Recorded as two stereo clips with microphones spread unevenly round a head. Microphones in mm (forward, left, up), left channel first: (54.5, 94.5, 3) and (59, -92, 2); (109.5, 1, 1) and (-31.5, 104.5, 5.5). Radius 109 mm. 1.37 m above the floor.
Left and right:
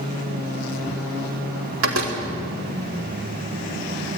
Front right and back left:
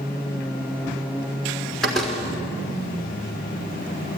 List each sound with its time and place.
1.8 s a door slam: 125° right, 3 m